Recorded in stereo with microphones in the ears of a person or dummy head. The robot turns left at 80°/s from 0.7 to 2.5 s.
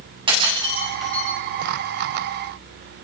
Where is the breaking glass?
25° right (ahead or behind), 8.5 m; by 1.3 s 20° left (ahead or behind), 8.5 m.